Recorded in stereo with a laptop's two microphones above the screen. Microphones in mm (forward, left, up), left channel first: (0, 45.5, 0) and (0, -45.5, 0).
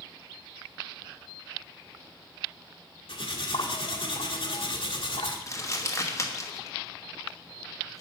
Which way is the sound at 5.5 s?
35° left (ahead or behind).